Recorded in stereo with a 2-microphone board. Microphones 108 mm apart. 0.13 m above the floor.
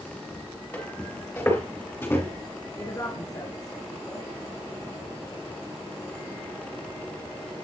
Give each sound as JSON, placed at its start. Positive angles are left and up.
{"t": 0.7, "sound": "footsteps", "side_deg": 15, "distance_m": 4.5}
{"t": 2.8, "sound": "a woman speaking", "side_deg": 35, "distance_m": 1.7}